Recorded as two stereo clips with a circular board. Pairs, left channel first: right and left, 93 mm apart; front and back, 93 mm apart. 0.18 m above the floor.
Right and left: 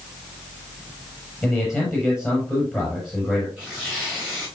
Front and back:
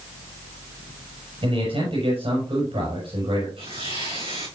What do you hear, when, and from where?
1.4 s a man speaking: 175° left, 5.5 m
3.6 s tearing paper: 175° left, 7 m